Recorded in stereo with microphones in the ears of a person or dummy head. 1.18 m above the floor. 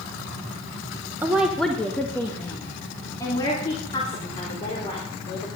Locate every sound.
1.2 s a woman speaking: 15° right (ahead or behind), 0.9 m; by 5.5 s 25° left (ahead or behind), 4.5 m